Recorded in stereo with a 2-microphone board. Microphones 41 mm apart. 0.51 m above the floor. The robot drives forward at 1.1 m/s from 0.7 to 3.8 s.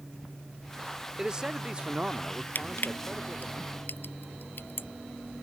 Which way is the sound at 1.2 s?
20° right (ahead or behind).